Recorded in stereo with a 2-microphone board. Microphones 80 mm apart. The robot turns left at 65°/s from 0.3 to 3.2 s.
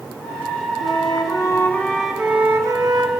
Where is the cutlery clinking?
No cutlery clinking in this recording.